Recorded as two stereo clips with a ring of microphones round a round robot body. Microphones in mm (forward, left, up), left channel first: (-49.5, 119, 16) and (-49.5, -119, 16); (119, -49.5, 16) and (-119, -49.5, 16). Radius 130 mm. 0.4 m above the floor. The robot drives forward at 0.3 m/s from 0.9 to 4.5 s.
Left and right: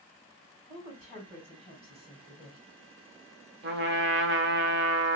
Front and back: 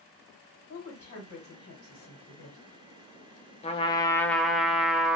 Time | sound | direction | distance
0.7 | a woman speaking | 20° right | 2.5 m
3.6 | a trumpet | 60° right | 0.6 m